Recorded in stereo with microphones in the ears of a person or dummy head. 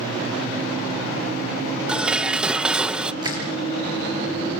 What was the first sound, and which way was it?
Dishes clattering, 5° right (ahead or behind).